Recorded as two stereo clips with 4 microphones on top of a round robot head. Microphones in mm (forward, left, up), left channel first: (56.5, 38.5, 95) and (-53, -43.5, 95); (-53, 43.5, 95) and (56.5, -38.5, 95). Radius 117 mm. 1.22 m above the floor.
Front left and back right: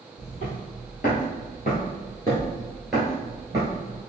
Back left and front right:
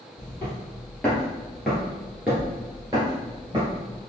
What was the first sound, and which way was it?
Footsteps, 65° left.